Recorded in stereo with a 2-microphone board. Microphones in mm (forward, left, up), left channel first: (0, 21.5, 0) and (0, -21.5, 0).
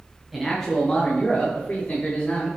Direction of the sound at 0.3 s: Centre (ahead or behind).